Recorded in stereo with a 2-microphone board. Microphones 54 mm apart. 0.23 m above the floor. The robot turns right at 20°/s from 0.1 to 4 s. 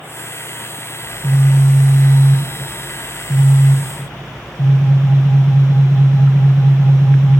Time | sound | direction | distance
1.0 | a phone buzzing | 50° left | 2.5 m